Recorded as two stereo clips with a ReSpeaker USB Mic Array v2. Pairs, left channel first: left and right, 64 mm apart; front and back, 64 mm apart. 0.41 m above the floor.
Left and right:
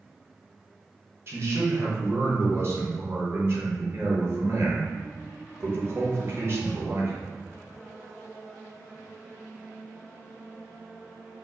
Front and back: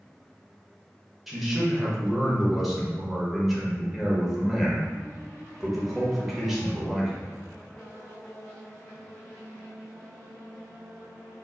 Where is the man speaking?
95° right, 1.1 m.